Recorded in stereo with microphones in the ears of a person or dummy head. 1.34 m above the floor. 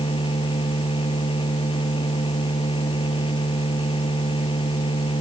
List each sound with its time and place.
0.0 s a machine running: 25° left (ahead or behind)